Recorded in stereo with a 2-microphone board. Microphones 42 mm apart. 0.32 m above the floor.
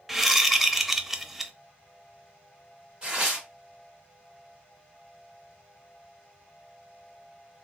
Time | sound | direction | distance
0.1 | a whoosh | centre (ahead or behind) | 0.5 m
3.0 | tearing paper | 25° right (ahead or behind) | 1.3 m